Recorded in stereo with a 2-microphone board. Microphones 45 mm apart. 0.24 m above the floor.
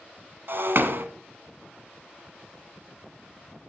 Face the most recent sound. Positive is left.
turn(degrees=-60)  # may be behind; listen again after turning